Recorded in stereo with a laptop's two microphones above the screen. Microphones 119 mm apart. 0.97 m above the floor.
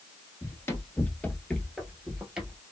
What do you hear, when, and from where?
0.4 s running footsteps: 25° left (ahead or behind), 1.1 m; by 2.6 s 15° right (ahead or behind), 1.2 m